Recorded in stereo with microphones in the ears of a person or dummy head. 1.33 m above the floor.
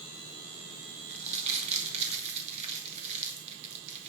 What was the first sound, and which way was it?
Crumpling, 35° right (ahead or behind).